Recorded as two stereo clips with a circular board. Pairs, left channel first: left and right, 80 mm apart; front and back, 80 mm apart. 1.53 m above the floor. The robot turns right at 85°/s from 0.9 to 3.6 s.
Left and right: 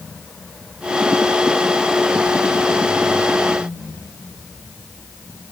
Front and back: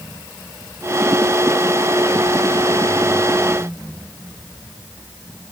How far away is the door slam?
I don't hear a door slam.